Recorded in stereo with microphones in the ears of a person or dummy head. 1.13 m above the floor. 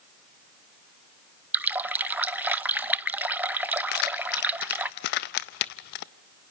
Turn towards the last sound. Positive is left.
turn(degrees=55)  # may be behind; listen again after turning